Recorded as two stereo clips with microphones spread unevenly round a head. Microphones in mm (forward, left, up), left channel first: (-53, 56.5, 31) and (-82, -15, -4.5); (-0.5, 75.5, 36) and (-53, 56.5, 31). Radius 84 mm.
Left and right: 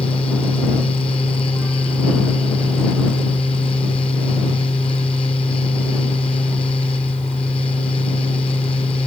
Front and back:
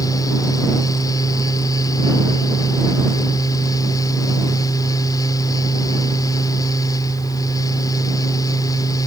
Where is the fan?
10° left.